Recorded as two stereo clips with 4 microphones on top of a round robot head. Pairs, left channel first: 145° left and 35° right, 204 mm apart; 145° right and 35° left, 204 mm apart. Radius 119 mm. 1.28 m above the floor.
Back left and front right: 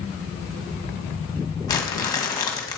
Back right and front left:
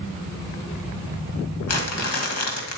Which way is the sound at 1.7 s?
140° right.